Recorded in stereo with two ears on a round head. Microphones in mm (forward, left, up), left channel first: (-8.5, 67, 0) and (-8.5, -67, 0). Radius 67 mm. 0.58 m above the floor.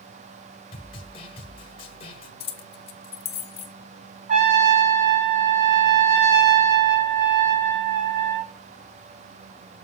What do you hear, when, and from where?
0.7 s a snare drum: 35° left (ahead or behind), 1.3 m
2.4 s keys jangling: 40° left (ahead or behind), 0.7 m
4.3 s a trumpet: 50° right (ahead or behind), 1.8 m